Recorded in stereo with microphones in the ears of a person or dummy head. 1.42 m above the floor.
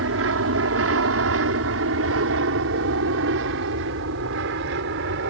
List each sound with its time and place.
0.0 s an aircraft: 70° right (ahead or behind); by 5.3 s 60° right (ahead or behind)